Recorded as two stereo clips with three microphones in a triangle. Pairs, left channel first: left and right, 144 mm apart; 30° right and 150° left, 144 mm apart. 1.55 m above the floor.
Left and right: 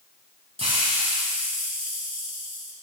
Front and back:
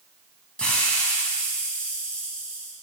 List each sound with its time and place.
0.6 s a hiss: 110° right, 2.0 m